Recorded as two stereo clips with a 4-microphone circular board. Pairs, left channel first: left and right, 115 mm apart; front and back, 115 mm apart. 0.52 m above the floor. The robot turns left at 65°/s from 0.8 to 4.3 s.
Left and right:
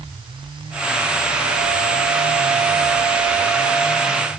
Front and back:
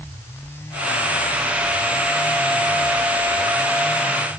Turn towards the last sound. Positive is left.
No sound to turn to.